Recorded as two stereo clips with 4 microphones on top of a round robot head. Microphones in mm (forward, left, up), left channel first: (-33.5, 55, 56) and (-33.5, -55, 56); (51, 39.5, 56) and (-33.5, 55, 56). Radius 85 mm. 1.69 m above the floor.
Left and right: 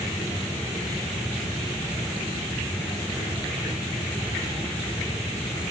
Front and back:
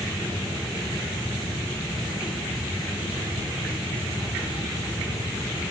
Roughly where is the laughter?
No laughter in this recording.